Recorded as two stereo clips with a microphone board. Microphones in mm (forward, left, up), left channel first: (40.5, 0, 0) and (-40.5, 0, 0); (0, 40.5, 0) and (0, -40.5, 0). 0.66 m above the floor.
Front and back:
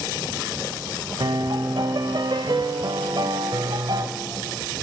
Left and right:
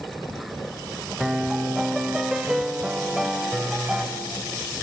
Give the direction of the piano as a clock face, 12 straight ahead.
6 o'clock.